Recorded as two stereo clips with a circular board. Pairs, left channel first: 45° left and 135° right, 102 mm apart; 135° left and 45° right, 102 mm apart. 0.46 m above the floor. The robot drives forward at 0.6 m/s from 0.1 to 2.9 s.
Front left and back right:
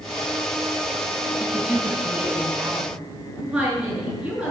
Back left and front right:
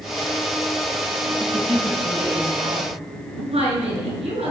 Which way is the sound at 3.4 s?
55° right.